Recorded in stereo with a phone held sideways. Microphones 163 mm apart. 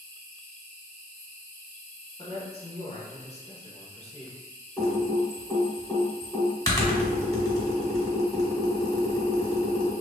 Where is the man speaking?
40° left (ahead or behind), 0.8 m.